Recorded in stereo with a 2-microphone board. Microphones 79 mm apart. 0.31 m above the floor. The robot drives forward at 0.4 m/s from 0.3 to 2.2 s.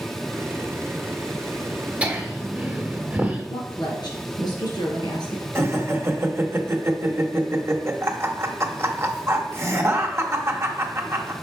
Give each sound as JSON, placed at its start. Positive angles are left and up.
{"t": 2.0, "sound": "laughter", "side_deg": -20, "distance_m": 1.4}
{"t": 3.5, "sound": "a woman speaking", "side_deg": 70, "distance_m": 3.0}
{"t": 5.5, "sound": "laughter", "side_deg": -35, "distance_m": 1.0}